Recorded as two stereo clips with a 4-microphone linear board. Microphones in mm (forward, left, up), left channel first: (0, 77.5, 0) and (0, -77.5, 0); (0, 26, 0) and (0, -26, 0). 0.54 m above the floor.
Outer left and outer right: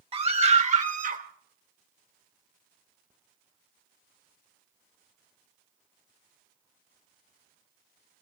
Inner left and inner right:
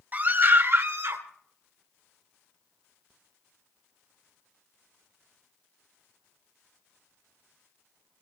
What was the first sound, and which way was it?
A scream, 35° right (ahead or behind).